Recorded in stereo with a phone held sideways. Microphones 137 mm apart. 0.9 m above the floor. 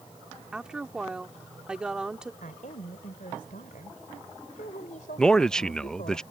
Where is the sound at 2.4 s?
80° left.